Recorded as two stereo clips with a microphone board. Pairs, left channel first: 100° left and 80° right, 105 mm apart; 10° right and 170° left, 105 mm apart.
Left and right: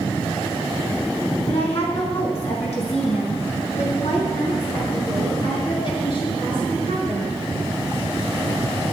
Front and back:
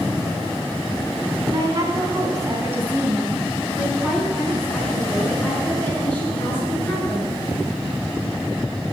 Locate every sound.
1.5 s a woman speaking: 120° left, 4 m; by 7.3 s 55° left, 7 m